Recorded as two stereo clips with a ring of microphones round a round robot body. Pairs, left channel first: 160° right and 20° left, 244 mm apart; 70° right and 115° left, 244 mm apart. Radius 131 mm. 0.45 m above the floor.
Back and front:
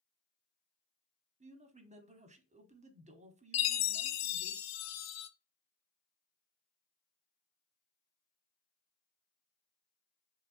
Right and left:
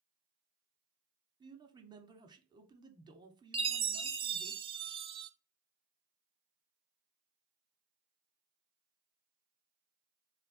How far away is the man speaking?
About 1.1 m.